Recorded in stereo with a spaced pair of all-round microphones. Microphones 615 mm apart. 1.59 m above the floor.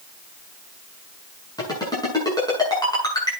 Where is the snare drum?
No snare drum in this recording.